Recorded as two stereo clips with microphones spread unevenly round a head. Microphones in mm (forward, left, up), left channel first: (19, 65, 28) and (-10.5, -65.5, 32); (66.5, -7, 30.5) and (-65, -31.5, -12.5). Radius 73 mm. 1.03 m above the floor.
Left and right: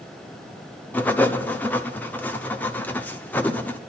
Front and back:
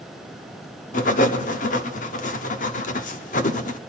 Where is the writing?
Straight ahead, 1.1 m.